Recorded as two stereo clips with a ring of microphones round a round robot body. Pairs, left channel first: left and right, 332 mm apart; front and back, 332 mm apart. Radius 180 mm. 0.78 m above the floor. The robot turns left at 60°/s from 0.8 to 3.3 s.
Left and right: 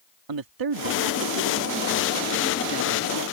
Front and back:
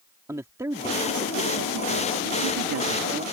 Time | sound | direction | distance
0.3 | a man speaking | 100° right | ?